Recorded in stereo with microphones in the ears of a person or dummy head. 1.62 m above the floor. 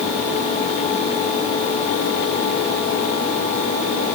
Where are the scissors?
No scissors in this recording.